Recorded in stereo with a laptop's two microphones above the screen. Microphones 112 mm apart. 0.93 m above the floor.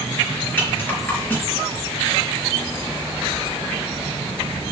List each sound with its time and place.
0.6 s a rattle: 20° left (ahead or behind), 4.5 m